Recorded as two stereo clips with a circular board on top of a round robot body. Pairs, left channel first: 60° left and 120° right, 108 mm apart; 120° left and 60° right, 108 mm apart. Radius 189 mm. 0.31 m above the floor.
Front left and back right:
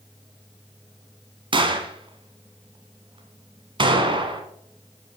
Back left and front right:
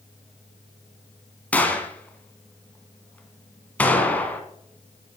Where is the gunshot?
165° right, 1.8 m.